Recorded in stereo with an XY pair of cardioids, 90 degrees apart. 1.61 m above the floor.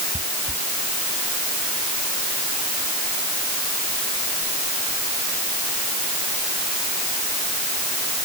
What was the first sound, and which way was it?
Footsteps, 5° right.